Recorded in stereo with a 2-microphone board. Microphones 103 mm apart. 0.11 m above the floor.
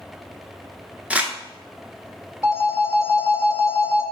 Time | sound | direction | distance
1.1 | crumpling | 10° right (ahead or behind) | 0.6 m
2.4 | a phone ringing | 30° left (ahead or behind) | 0.9 m